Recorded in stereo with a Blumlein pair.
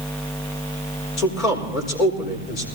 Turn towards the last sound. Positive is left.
turn(degrees=35)